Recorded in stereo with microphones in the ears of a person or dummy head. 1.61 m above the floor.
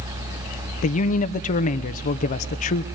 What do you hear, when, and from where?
0.8 s a man speaking: 45° left (ahead or behind), 0.8 m